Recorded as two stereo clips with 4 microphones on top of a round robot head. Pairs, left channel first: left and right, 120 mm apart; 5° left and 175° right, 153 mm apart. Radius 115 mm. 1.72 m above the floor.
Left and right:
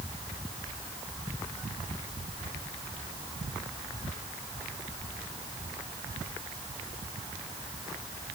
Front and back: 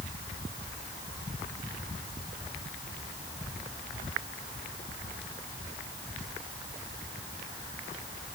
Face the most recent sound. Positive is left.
No sound to turn to.